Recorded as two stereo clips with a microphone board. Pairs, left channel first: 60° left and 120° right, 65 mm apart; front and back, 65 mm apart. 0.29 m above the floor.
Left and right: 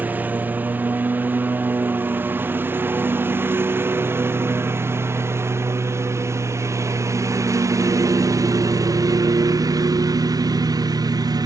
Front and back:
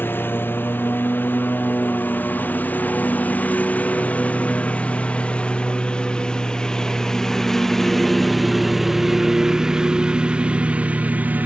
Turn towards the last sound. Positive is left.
turn(degrees=-115)